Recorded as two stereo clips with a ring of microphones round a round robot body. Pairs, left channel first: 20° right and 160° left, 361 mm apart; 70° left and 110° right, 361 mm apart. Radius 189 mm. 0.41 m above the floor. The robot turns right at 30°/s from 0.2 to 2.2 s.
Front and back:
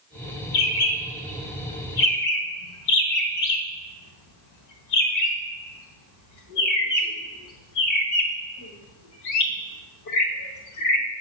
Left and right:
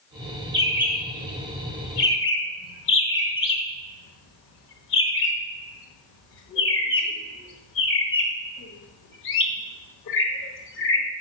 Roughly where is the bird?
Ahead right.